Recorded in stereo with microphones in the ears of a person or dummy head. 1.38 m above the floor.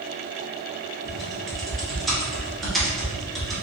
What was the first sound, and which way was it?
Typing on a keyboard, centre (ahead or behind).